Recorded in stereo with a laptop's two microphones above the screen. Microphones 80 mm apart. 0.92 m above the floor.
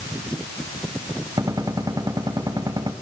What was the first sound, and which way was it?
A gunshot, 55° right (ahead or behind).